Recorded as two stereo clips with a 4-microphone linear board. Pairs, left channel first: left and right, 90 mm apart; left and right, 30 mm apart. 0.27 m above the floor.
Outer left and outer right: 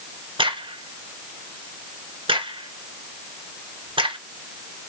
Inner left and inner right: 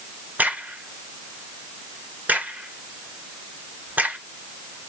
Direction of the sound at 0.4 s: 70° right (ahead or behind).